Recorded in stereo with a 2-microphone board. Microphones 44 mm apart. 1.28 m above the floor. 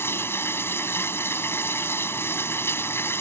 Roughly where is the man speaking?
No man speaking in this recording.